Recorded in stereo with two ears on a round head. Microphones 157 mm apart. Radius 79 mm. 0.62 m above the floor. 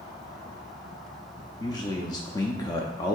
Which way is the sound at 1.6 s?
20° left (ahead or behind).